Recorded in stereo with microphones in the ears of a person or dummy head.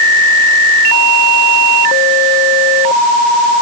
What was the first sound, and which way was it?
Only background noise.